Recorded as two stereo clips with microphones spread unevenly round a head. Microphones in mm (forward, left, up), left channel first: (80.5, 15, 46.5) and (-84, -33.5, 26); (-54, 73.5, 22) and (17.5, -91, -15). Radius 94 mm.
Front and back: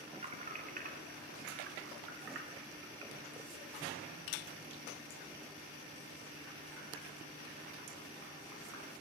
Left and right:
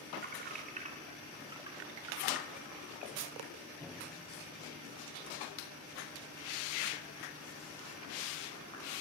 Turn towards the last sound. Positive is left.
turn(degrees=180)